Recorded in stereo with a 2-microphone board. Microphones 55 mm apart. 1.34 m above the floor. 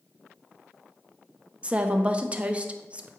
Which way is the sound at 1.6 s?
25° right (ahead or behind).